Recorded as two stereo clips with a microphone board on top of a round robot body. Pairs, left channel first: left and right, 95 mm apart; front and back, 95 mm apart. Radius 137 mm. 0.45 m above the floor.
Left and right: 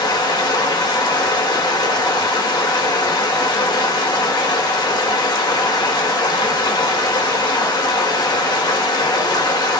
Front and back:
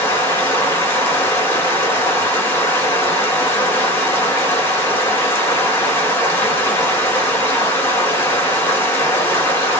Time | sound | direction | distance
0.0 | running water | 60° left | 1.7 m